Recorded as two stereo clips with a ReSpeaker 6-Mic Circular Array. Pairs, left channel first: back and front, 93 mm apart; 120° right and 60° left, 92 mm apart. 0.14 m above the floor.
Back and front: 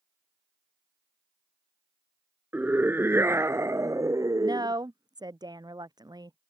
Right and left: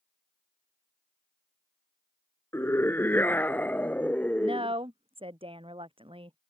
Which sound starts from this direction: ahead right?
A scream, at 2.5 s.